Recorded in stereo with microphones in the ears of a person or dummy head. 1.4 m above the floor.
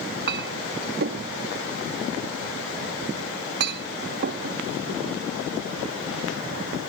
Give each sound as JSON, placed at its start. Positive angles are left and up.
{"t": 0.3, "sound": "a clink", "side_deg": -55}